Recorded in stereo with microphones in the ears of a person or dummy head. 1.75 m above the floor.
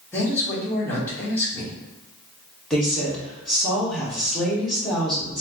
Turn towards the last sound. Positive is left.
turn(degrees=0)  # may be behind; listen again after turning